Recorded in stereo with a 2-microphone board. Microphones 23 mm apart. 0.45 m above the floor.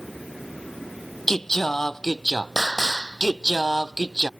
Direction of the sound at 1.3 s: 10° left (ahead or behind).